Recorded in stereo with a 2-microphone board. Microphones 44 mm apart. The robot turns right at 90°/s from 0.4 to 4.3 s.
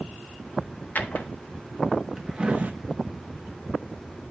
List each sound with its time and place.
0.9 s a drawer: 45° left (ahead or behind), 0.9 m; by 2.7 s 40° right (ahead or behind), 0.9 m